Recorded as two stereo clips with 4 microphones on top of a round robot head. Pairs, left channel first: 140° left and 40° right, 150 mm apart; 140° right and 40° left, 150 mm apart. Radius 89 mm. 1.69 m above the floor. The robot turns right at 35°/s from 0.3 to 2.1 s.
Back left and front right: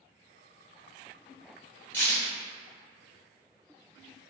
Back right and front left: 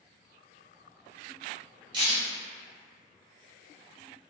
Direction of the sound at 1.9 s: 70° left.